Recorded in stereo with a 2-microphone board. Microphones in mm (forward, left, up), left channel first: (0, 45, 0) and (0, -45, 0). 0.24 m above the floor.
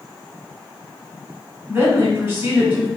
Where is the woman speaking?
25° right (ahead or behind), 1.5 m.